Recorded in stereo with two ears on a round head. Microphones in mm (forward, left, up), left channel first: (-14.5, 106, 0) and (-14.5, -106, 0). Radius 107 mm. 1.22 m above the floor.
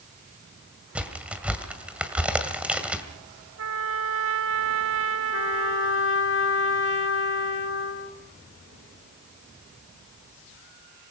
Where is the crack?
5° right (ahead or behind), 1.9 m.